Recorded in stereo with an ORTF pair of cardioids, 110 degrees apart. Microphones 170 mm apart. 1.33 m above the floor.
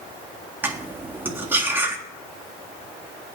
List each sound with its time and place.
0.6 s cutlery clinking: 10° right, 1.7 m